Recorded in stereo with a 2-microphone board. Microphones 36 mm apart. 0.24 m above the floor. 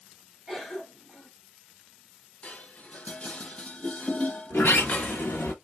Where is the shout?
No shout in this recording.